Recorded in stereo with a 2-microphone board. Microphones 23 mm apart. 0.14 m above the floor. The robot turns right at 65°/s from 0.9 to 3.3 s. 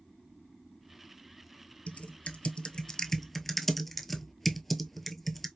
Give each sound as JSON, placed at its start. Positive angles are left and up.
{"t": 1.9, "sound": "typing on a keyboard", "side_deg": 70, "distance_m": 0.7}